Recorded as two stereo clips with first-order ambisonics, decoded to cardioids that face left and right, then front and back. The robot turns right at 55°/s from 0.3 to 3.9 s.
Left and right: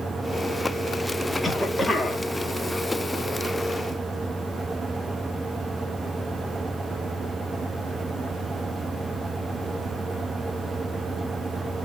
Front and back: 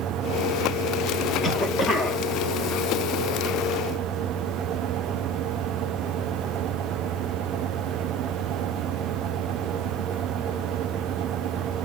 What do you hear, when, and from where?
1.4 s a cough: straight ahead, 0.7 m; by 2.2 s 45° left, 0.7 m